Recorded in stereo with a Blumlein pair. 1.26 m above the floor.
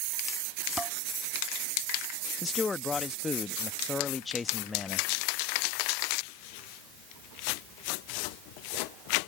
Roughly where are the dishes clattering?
Ahead.